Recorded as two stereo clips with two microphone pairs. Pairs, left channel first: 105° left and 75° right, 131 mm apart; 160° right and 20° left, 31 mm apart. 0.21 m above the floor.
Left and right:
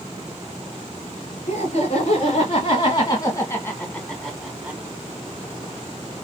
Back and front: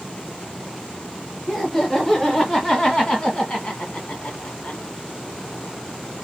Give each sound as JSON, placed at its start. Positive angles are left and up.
{"t": 1.5, "sound": "laughter", "azimuth_deg": 120, "distance_m": 2.5}